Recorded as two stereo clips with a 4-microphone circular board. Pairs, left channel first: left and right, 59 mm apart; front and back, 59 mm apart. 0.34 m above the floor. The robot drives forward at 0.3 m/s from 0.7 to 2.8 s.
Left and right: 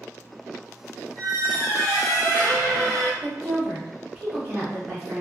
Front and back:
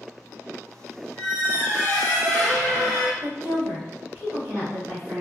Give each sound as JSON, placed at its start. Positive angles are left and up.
{"t": 1.2, "sound": "a squeak", "azimuth_deg": -105, "distance_m": 1.1}
{"t": 3.2, "sound": "a woman speaking", "azimuth_deg": -160, "distance_m": 1.5}